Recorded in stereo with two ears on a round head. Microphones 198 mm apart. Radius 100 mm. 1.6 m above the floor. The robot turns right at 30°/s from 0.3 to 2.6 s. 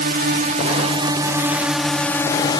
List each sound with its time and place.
0.0 s a drone: 45° right; by 2.6 s 25° left